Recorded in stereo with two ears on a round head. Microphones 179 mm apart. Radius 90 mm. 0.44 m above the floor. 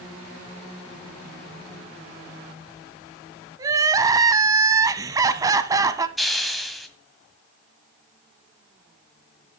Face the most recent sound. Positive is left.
turn(degrees=0)  # may be behind; listen again after turning